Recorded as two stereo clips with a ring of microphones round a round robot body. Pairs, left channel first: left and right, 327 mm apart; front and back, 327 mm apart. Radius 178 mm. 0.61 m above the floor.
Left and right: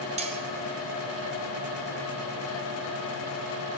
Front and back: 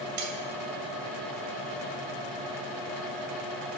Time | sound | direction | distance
0.2 | cutlery clinking | 160° right | 2.5 m